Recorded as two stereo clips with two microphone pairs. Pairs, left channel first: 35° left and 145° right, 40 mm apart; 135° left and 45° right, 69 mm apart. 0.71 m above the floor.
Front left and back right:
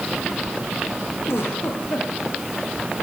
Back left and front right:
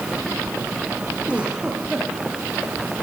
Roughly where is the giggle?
Ahead left.